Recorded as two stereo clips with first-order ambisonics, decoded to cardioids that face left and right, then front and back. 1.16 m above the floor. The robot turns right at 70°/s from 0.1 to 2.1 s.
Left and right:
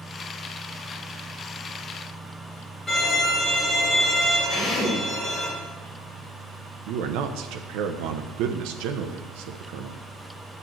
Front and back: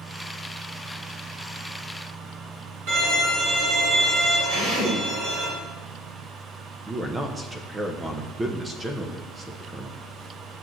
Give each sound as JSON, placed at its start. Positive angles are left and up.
{"t": 2.9, "sound": "a violin", "azimuth_deg": 170, "distance_m": 4.0}
{"t": 4.5, "sound": "a drill", "azimuth_deg": 135, "distance_m": 3.5}
{"t": 6.9, "sound": "a man speaking", "azimuth_deg": -105, "distance_m": 0.7}